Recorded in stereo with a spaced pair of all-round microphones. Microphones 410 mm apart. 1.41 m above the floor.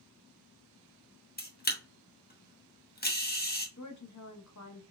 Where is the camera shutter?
25° left (ahead or behind), 0.8 m.